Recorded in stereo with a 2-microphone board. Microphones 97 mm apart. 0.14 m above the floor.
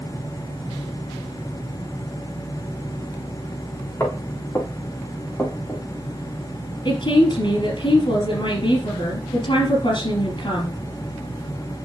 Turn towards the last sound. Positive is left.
turn(degrees=60)  # may be behind; listen again after turning